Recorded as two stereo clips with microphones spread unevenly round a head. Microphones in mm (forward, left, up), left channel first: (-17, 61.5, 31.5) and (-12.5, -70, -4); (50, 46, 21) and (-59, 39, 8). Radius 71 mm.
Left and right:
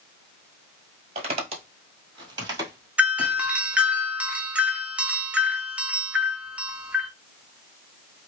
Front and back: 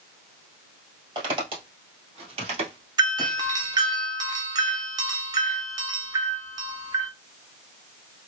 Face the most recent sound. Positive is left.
turn(degrees=-150)